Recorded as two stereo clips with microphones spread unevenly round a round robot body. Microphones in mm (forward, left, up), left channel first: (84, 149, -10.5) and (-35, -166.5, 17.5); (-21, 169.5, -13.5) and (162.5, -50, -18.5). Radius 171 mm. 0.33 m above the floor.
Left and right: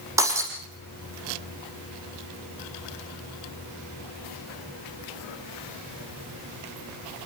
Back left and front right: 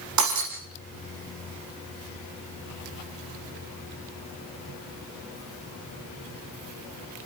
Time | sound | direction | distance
0.2 | breaking glass | 30° right | 8.5 m